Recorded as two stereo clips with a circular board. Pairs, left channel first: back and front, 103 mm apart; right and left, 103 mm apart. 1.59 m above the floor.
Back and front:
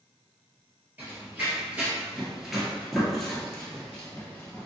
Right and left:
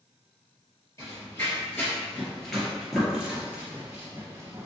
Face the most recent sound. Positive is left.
turn(degrees=120)